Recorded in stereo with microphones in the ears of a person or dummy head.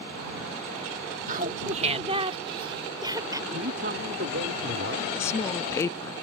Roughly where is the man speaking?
Right.